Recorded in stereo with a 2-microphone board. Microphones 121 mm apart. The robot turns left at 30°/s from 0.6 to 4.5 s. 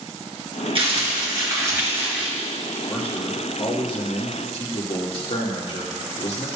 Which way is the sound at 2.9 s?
170° left.